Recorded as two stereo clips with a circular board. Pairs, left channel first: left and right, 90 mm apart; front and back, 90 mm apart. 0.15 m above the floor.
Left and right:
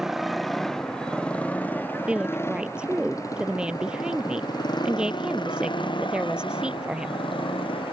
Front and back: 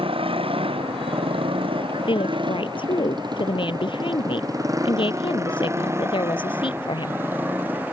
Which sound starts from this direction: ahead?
A woman speaking, at 2.1 s.